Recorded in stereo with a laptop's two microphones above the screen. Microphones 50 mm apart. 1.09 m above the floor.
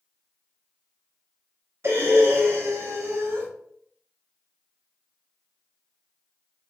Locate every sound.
1.8 s breathing: 50° right (ahead or behind), 0.7 m